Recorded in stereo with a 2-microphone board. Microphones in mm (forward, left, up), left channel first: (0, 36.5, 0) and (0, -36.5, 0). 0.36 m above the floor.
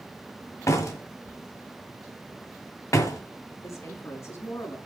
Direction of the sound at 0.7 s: 45° left (ahead or behind).